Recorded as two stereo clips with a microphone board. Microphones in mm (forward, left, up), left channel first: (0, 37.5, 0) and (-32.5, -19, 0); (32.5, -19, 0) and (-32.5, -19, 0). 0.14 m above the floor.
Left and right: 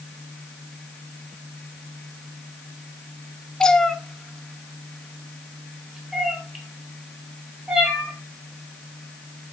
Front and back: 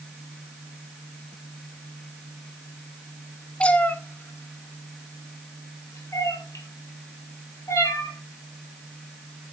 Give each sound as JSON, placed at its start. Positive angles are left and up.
{"t": 3.6, "sound": "a cat meowing", "azimuth_deg": 10, "distance_m": 0.8}